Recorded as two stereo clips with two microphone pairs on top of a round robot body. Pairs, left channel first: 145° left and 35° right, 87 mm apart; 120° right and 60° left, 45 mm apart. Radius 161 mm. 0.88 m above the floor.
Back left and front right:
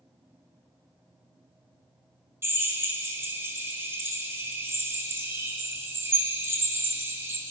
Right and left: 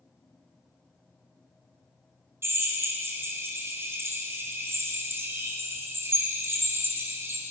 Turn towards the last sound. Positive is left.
turn(degrees=25)